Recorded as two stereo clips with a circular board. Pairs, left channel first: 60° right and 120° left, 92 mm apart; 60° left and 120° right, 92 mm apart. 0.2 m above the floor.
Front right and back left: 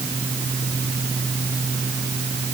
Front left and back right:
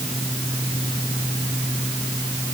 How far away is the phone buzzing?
I don't hear a phone buzzing.